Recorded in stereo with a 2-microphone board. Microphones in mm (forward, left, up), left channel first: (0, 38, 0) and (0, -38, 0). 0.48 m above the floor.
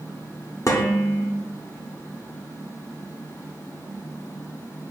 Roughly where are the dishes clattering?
Left.